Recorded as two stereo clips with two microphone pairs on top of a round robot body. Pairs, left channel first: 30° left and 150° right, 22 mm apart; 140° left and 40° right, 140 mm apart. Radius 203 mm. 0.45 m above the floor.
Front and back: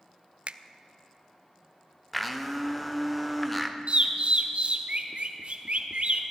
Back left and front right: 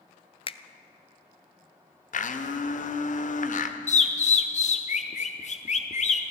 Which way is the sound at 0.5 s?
Straight behind.